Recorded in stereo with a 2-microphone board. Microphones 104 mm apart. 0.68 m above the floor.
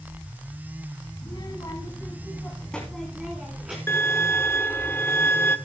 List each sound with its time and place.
1.2 s a child speaking: 50° left (ahead or behind), 3 m; by 3.8 s 15° right (ahead or behind), 4 m
3.9 s a violin: 20° left (ahead or behind), 1.3 m